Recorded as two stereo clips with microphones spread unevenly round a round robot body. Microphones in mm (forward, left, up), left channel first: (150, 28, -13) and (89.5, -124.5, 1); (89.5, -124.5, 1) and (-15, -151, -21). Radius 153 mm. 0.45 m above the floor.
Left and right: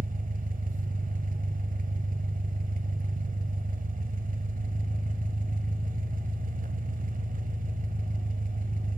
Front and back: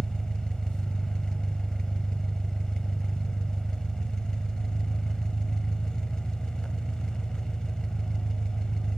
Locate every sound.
0.0 s an engine running: 75° right, 1.8 m